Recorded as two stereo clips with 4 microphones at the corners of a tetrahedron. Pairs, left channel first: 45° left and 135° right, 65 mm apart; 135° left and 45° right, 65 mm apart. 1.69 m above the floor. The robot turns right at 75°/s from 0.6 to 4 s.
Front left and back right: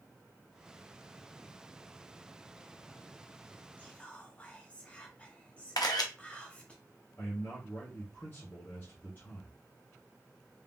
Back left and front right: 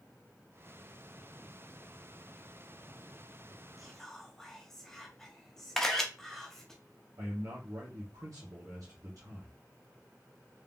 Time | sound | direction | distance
3.8 | whispering | 45° left | 0.6 m
5.8 | a camera shutter | 55° left | 0.7 m
7.2 | a man speaking | 15° right | 1.1 m